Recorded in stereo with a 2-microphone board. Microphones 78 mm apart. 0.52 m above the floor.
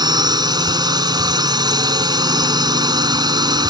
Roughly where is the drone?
Right.